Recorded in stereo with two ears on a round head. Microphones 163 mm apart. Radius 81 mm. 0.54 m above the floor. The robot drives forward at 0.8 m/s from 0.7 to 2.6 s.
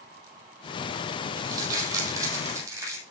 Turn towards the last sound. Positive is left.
turn(degrees=-15)  # may be behind; listen again after turning